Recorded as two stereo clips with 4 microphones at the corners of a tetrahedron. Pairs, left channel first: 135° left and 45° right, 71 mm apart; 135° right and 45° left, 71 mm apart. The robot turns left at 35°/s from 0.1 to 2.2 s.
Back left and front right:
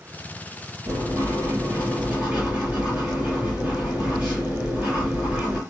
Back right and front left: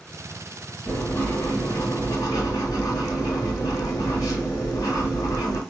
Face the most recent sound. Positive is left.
turn(degrees=-115)